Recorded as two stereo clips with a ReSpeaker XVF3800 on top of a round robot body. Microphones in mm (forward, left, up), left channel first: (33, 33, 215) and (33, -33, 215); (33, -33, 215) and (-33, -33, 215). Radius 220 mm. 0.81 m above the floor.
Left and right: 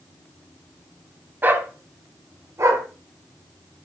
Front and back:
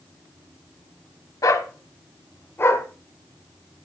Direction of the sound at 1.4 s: 30° right.